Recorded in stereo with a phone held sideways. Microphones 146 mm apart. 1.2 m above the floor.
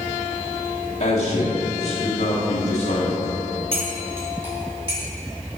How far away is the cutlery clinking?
About 2.0 m.